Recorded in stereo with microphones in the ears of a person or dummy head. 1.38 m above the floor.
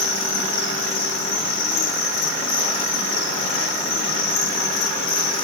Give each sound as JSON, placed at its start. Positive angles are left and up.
{"t": 0.0, "sound": "an insect", "side_deg": 55, "distance_m": 4.0}